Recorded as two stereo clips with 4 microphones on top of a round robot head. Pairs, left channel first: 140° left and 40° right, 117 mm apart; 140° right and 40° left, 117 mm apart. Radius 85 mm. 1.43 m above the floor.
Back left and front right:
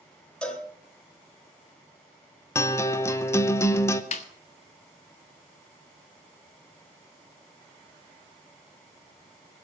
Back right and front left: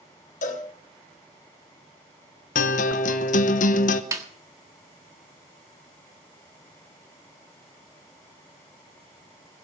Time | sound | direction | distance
0.4 | a cowbell | 140° right | 4 m
2.5 | a guitar | 155° right | 1.0 m
4.1 | a snare drum | 105° left | 1.5 m